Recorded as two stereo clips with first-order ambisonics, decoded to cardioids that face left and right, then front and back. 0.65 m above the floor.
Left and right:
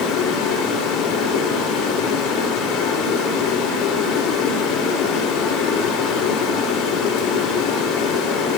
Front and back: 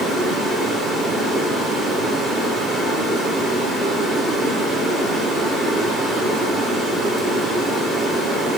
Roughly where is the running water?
Left.